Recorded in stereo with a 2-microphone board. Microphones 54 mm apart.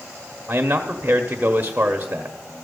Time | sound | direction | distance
0.5 | a man speaking | 35° right (ahead or behind) | 0.9 m